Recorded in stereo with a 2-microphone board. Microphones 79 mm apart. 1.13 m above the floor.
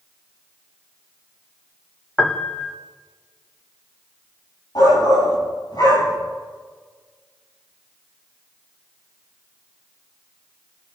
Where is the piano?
5° left (ahead or behind), 1.0 m.